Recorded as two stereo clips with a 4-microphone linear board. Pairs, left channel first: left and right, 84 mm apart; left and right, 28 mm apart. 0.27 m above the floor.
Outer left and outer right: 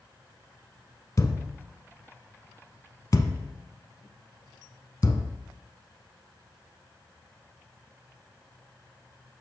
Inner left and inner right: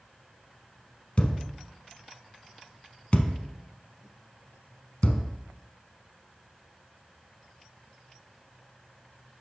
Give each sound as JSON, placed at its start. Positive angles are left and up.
{"t": 1.2, "sound": "a thud", "side_deg": 45, "distance_m": 0.6}